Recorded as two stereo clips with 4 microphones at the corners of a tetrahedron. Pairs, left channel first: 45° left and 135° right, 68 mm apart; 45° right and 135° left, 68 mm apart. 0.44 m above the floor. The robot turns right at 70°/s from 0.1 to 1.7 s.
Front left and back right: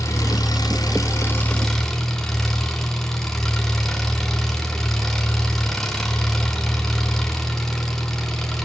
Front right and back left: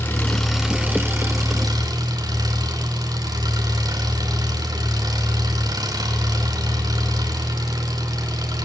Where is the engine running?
15° left, 3 m; by 8.7 s 125° left, 3 m.